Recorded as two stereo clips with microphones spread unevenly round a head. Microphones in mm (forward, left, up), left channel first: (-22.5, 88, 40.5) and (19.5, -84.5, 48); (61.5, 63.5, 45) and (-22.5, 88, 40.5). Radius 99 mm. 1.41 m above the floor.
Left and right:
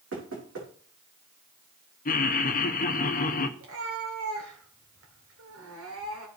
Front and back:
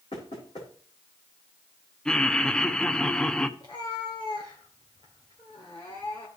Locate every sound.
0.1 s knocking: 65° right, 4 m
2.0 s laughter: 65° left, 1.0 m
3.6 s a cat meowing: 85° right, 2 m